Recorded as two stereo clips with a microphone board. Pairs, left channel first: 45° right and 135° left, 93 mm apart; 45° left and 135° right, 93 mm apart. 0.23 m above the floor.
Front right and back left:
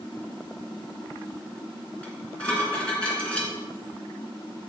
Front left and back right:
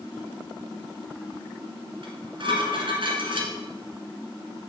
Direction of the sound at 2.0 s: 125° right.